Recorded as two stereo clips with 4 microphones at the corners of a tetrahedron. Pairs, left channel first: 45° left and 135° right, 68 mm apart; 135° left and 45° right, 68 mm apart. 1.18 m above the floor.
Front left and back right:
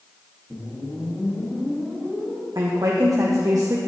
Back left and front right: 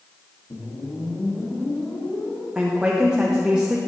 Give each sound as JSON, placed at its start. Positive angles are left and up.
{"t": 0.5, "sound": "a whoosh", "azimuth_deg": 120, "distance_m": 1.7}
{"t": 2.5, "sound": "a woman speaking", "azimuth_deg": -120, "distance_m": 0.7}